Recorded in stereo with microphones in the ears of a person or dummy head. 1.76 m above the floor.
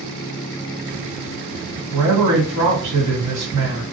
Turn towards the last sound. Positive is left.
turn(degrees=-75)  # may be behind; listen again after turning